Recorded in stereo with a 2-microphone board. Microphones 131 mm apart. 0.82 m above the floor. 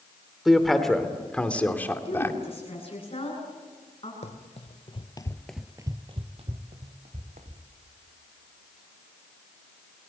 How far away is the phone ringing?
I don't hear a phone ringing.